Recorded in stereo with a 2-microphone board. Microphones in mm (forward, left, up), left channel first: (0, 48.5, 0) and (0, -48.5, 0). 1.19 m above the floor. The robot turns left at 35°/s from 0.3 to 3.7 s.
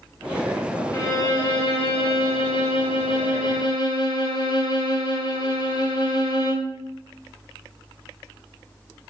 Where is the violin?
145° left, 2.5 m; by 6.8 s 50° left, 2.5 m.